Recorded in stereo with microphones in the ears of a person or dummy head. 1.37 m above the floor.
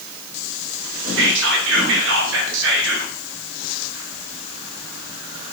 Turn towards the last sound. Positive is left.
turn(degrees=-60)  # may be behind; listen again after turning